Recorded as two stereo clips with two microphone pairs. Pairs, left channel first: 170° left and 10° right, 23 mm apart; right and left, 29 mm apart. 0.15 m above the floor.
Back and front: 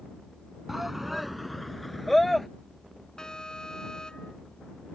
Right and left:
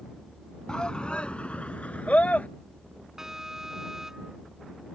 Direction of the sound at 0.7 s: 85° right.